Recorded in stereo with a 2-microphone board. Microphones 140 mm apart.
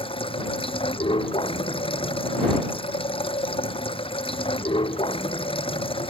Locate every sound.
0.0 s running water: 40° left (ahead or behind)